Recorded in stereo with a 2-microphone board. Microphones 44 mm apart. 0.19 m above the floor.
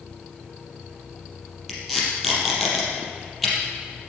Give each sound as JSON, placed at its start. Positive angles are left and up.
{"t": 1.7, "sound": "tape being pulled", "side_deg": 0, "distance_m": 4.5}